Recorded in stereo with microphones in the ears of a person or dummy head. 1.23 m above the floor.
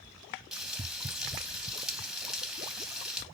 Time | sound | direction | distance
0.5 | frying | centre (ahead or behind) | 1.3 m